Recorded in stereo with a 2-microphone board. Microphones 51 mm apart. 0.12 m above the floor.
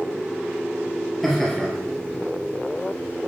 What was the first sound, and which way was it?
Laughter, centre (ahead or behind).